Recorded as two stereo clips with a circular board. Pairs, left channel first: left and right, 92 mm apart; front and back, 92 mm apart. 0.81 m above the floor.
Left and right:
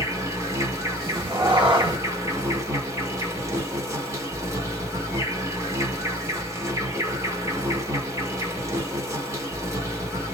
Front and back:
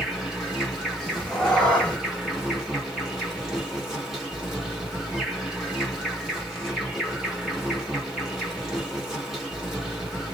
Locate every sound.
0.0 s an insect: 100° right, 1.3 m
1.0 s a cat meowing: 80° right, 1.1 m